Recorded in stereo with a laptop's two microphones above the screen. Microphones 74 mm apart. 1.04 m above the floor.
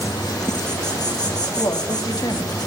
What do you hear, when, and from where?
0.0 s an insect: 60° left (ahead or behind), 1.8 m
1.6 s a woman speaking: 60° left (ahead or behind), 1.9 m